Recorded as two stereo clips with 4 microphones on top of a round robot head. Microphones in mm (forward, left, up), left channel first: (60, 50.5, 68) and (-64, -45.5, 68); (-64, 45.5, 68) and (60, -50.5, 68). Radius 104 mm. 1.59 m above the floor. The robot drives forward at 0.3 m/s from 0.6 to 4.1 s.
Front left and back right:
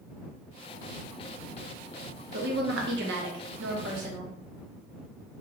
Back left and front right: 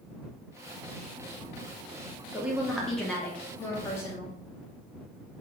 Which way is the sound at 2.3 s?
120° right.